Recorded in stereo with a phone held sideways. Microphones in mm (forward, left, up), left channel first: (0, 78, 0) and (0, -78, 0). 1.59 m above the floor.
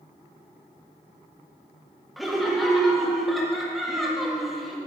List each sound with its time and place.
2.2 s laughter: centre (ahead or behind), 1.7 m